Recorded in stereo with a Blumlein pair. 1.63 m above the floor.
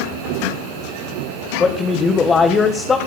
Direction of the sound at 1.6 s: 20° left.